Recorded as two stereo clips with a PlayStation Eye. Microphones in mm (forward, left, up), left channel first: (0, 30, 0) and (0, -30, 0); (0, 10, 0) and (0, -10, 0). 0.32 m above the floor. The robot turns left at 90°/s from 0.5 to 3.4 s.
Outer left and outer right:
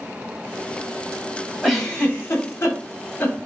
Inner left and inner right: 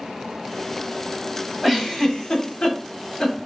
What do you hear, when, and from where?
1.6 s a giggle: 5° right (ahead or behind), 1.4 m; by 3.4 s 25° left (ahead or behind), 1.4 m